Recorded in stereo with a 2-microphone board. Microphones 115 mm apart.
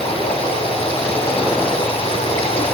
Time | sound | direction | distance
0.0 | running water | 65° left (ahead or behind) | 8 m